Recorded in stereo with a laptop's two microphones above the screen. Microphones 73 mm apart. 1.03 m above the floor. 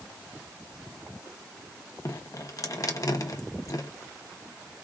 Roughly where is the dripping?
Left.